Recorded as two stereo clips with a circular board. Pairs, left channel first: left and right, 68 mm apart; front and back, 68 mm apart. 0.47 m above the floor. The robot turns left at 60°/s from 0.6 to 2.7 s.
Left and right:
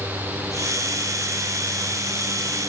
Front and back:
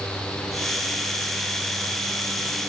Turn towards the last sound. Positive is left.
No sound to turn to.